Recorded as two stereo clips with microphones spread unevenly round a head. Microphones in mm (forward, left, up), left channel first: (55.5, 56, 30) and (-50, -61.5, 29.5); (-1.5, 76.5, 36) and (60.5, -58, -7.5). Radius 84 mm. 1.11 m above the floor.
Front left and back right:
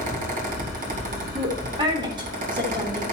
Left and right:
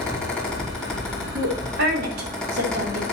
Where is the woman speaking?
70° right, 3 m.